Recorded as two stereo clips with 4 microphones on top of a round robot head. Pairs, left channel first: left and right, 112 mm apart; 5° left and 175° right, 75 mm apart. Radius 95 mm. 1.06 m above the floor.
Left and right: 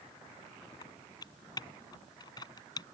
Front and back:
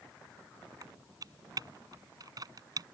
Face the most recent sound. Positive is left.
turn(degrees=150)